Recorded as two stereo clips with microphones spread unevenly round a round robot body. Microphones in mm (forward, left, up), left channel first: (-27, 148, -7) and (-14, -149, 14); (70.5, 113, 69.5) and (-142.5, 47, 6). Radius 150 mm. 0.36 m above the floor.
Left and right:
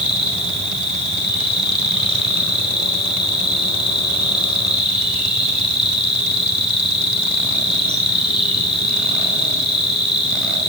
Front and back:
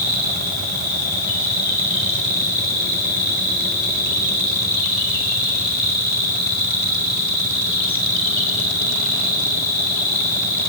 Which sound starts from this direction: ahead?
An insect, at 0.0 s.